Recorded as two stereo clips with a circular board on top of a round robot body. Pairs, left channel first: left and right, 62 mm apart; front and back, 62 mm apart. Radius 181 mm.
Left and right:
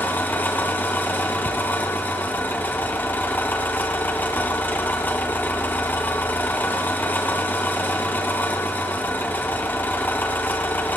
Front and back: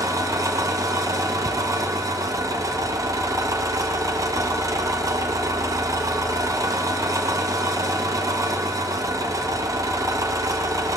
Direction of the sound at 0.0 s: 150° left.